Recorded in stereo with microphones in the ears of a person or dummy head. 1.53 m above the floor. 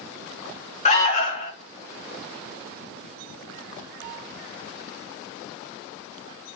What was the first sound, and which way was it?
An alarm, 30° left (ahead or behind).